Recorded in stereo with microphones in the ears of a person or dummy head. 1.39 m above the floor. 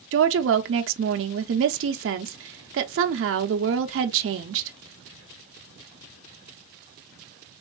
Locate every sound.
0.1 s a woman speaking: 60° right (ahead or behind), 0.6 m